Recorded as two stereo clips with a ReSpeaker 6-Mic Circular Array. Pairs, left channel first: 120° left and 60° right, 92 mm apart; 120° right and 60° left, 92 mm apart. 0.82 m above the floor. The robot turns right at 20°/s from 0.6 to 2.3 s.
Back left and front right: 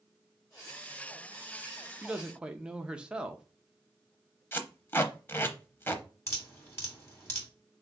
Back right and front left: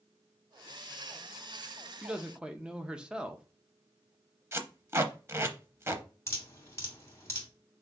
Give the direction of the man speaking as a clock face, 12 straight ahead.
12 o'clock.